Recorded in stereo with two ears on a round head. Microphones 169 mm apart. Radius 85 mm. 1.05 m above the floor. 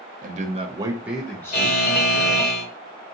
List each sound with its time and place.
0.2 s a man speaking: 45° right (ahead or behind), 0.9 m; by 2.5 s 45° left (ahead or behind), 1.2 m
1.5 s a buzzer: 45° left (ahead or behind), 1.9 m